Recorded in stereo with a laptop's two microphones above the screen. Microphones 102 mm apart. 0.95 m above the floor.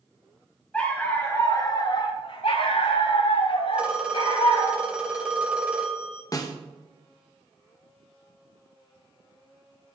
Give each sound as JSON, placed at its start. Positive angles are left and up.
{"t": 0.7, "sound": "a dog barking", "side_deg": 15, "distance_m": 1.7}
{"t": 3.7, "sound": "a phone ringing", "side_deg": -10, "distance_m": 2.0}
{"t": 6.3, "sound": "a snare drum", "side_deg": 35, "distance_m": 1.2}